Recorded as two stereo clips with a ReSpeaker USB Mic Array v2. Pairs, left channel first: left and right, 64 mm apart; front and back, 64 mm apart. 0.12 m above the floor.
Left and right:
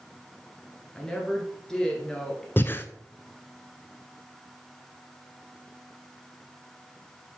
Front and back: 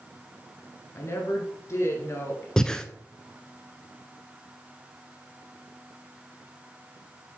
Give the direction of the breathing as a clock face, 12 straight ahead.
9 o'clock.